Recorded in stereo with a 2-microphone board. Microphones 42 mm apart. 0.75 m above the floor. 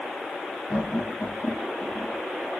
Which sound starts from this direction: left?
Laughter, at 0.7 s.